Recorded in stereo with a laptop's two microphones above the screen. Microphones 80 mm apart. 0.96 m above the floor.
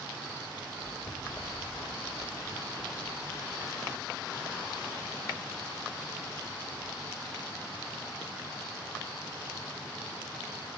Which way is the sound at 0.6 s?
30° left (ahead or behind).